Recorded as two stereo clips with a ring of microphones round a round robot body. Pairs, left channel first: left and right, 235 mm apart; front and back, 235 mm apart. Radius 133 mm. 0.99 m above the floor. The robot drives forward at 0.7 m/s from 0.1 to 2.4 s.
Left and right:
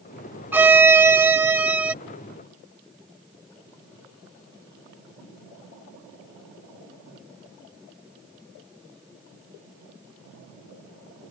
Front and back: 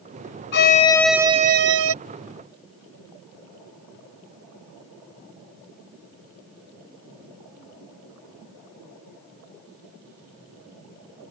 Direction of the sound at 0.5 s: 10° right.